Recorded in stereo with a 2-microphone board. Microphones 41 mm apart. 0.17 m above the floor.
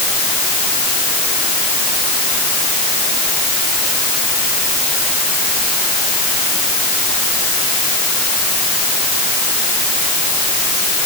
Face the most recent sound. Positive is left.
No sound to turn to.